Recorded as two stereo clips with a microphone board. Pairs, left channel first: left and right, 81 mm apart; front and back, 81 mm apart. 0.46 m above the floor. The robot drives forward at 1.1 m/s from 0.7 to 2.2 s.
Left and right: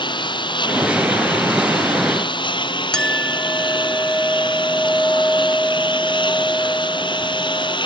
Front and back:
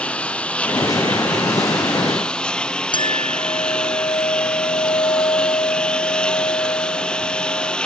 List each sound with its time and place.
0.0 s a lawn mower: 75° left; by 7.8 s 80° left
2.9 s a clink: 10° left